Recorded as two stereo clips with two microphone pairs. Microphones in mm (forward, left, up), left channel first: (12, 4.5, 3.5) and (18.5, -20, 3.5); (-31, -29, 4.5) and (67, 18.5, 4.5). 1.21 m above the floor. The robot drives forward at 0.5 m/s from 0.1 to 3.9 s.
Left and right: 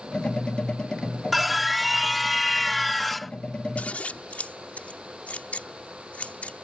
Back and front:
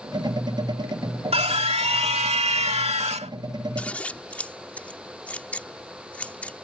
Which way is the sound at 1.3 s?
10° left.